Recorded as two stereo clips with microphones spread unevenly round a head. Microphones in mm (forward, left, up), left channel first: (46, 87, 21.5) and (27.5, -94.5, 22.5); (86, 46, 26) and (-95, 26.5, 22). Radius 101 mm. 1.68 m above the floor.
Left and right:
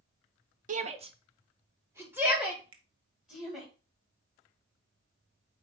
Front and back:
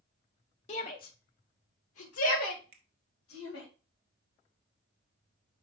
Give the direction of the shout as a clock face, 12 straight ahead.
2 o'clock.